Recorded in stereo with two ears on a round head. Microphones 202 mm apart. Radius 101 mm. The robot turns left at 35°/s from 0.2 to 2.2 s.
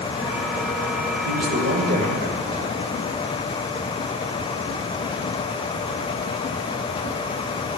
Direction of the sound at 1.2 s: 95° right.